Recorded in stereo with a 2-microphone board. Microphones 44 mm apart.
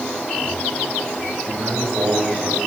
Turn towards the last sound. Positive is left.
turn(degrees=-75)  # may be behind; listen again after turning